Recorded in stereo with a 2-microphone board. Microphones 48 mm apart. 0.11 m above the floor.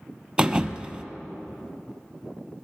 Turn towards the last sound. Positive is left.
turn(degrees=-20)  # may be behind; listen again after turning